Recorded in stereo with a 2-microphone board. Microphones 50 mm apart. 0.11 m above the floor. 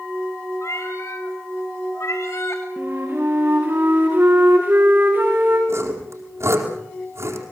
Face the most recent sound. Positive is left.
turn(degrees=-65)  # may be behind; listen again after turning